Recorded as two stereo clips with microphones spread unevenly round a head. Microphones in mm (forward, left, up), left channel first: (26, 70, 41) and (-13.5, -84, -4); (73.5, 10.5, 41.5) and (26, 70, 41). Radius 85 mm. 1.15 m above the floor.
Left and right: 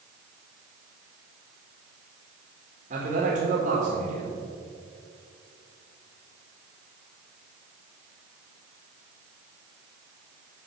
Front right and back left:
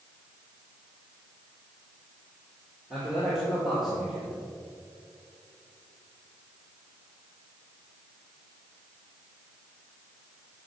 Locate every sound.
2.9 s a man speaking: 145° right, 1.9 m